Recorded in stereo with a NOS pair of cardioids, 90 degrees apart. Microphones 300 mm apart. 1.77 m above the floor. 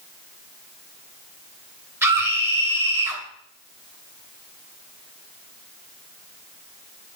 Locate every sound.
2.0 s a scream: 10° right, 2.5 m